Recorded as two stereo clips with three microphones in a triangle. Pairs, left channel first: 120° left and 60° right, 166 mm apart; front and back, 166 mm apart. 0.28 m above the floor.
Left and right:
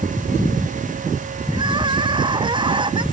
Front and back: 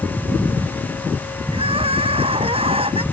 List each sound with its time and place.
1.5 s crying: 120° right